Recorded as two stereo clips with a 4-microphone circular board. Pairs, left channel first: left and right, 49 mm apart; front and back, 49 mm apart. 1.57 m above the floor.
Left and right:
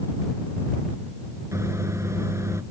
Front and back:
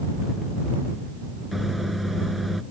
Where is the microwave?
90° right.